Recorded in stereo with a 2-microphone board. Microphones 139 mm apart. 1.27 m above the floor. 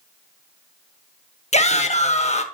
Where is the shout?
50° left (ahead or behind), 1.1 m.